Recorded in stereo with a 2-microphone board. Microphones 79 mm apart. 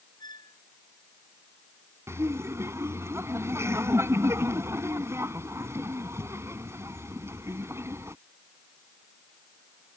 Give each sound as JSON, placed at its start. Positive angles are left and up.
{"t": 0.2, "sound": "a squeak", "side_deg": 60}
{"t": 2.1, "sound": "laughter", "side_deg": -35}